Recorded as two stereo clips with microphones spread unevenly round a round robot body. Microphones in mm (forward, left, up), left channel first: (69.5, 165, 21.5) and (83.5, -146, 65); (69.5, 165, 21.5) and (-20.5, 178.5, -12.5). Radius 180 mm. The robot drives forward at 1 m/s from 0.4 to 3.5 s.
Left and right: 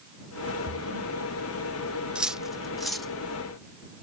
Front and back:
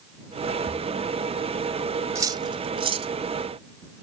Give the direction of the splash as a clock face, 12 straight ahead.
3 o'clock.